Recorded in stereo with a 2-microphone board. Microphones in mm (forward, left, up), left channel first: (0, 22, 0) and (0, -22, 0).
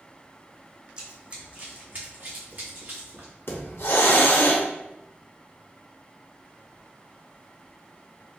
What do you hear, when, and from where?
1.0 s running footsteps: 20° right (ahead or behind), 1.0 m; by 3.3 s 55° right (ahead or behind), 2.0 m
3.5 s a hiss: 60° left (ahead or behind), 0.6 m